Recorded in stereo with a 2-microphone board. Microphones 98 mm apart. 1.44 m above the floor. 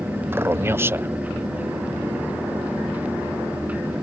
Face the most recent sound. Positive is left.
turn(degrees=-25)  # may be behind; listen again after turning